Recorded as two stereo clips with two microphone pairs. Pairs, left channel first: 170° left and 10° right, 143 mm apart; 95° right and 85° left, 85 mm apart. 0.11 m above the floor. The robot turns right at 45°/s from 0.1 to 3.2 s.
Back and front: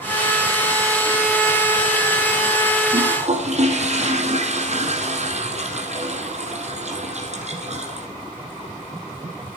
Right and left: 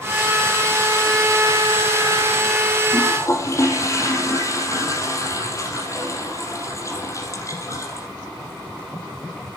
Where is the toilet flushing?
55° right, 4.5 m; by 8.1 s 45° right, 4.5 m.